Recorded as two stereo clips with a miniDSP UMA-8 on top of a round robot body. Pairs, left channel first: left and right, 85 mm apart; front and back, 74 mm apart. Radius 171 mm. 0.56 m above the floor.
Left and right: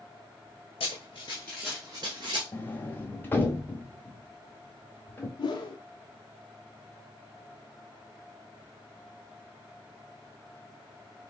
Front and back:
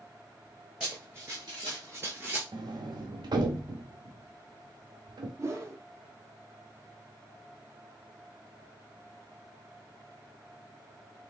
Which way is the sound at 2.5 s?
160° left.